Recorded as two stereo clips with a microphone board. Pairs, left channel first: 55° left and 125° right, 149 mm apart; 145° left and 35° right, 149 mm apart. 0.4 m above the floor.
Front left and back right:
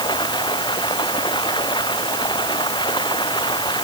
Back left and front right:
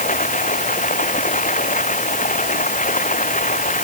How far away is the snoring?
No snoring in this recording.